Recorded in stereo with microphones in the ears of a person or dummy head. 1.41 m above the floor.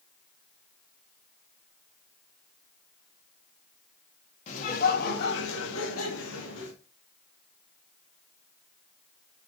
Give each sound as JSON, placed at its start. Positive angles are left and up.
{"t": 4.5, "sound": "laughter", "side_deg": 40, "distance_m": 2.0}